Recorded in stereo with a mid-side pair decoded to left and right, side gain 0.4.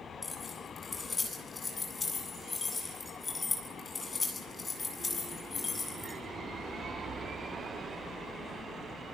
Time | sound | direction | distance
0.2 | keys jangling | 30° left | 8.5 m